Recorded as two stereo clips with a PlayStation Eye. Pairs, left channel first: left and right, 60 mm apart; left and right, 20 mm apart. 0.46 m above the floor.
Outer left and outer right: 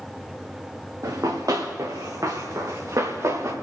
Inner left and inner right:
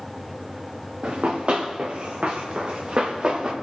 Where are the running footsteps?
70° right (ahead or behind), 2.5 m; by 3.5 s 60° right (ahead or behind), 3 m.